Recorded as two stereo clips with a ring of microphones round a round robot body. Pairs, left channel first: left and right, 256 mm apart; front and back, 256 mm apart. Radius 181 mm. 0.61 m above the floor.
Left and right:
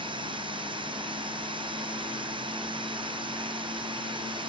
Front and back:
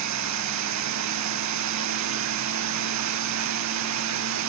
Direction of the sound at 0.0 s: 165° right.